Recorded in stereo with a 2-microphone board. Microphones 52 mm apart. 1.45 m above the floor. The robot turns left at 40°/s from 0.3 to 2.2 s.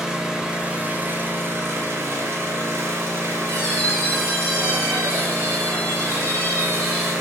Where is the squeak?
40° left (ahead or behind), 2.0 m.